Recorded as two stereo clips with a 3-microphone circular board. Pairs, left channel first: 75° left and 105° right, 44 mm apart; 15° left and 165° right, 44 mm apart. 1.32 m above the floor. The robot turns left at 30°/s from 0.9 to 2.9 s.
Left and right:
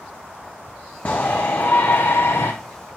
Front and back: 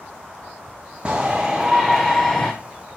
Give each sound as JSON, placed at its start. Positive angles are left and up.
{"t": 1.1, "sound": "a shout", "azimuth_deg": 125, "distance_m": 0.7}